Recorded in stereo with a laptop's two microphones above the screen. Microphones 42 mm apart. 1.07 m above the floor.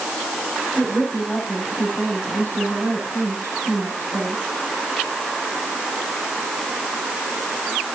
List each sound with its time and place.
0.8 s a woman speaking: 80° left, 9.5 m